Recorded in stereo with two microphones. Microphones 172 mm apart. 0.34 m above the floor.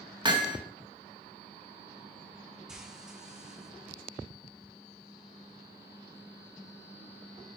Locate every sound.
0.2 s hammering: 25° right (ahead or behind), 1.8 m
2.7 s frying: 5° right (ahead or behind), 3 m